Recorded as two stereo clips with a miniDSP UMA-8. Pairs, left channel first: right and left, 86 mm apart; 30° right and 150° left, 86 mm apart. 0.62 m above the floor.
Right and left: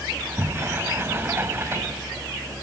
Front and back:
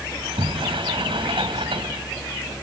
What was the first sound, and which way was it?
A sliding door, 150° left.